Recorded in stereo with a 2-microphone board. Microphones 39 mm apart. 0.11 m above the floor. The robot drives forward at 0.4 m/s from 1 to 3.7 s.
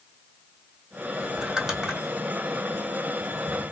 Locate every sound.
1.4 s crumpling: 10° right (ahead or behind), 1.9 m; by 2.0 s 5° right (ahead or behind), 2 m